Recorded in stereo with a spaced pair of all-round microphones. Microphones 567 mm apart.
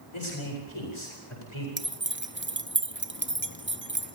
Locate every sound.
0.1 s a man speaking: 60° left (ahead or behind), 8.5 m
1.8 s keys jangling: 20° right (ahead or behind), 0.8 m